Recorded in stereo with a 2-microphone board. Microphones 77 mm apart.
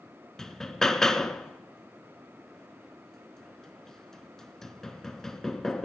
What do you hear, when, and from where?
0.4 s hammering: 5° left (ahead or behind), 0.9 m